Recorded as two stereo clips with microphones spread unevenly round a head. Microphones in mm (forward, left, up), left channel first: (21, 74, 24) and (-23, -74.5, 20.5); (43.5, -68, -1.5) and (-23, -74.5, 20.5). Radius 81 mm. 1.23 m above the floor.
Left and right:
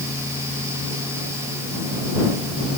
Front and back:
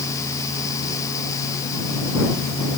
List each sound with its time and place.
Only background noise.